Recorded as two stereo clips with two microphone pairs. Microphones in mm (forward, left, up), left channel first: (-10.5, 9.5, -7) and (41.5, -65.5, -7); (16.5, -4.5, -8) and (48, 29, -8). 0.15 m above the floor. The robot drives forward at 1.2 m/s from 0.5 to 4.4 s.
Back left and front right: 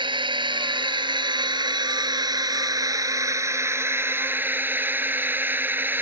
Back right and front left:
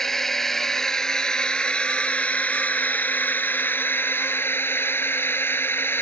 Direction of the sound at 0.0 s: 50° right.